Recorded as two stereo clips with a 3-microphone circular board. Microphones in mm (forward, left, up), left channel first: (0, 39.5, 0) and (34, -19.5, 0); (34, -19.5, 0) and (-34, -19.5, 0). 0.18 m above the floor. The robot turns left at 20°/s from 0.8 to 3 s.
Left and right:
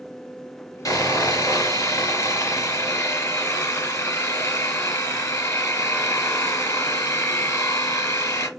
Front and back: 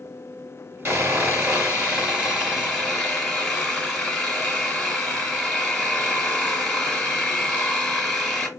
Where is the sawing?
130° left, 3.5 m; by 8.5 s 90° left, 3.5 m.